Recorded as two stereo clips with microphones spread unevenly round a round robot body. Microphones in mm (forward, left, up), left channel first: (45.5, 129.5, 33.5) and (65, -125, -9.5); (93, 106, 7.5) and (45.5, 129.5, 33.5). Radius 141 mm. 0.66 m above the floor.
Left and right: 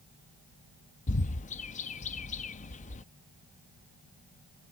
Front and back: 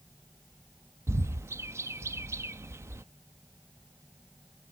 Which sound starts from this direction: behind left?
A bird, at 1.1 s.